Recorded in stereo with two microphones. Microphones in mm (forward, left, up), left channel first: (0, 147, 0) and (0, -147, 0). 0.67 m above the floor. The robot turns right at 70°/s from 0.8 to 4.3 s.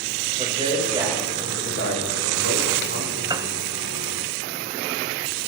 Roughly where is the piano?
Centre.